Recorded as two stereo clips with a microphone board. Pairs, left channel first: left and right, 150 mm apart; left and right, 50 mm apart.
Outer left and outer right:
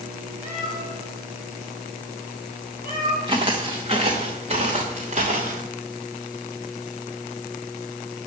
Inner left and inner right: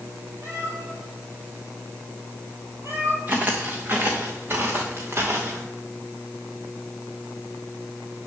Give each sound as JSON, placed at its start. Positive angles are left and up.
{"t": 0.4, "sound": "a cat meowing", "side_deg": -55, "distance_m": 5.0}
{"t": 3.3, "sound": "footsteps", "side_deg": -30, "distance_m": 2.0}